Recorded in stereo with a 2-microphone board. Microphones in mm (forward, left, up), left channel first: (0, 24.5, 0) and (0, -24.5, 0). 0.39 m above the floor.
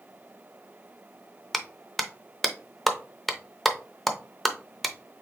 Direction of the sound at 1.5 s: Centre (ahead or behind).